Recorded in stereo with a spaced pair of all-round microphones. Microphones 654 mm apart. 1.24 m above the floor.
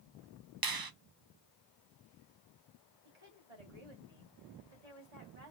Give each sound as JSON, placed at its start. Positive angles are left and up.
{"t": 0.6, "sound": "a finger snap", "side_deg": -40, "distance_m": 0.5}
{"t": 3.0, "sound": "a woman speaking", "side_deg": -75, "distance_m": 3.0}